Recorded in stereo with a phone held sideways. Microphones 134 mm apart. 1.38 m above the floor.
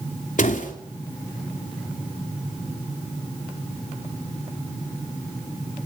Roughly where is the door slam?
Left.